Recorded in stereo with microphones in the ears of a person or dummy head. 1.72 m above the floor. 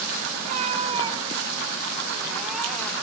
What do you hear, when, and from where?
0.4 s a cat meowing: 40° right (ahead or behind), 2 m; by 2.9 s 10° left (ahead or behind), 2 m